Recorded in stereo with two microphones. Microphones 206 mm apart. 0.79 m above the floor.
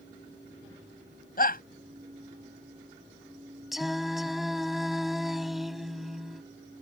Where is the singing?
Centre (ahead or behind).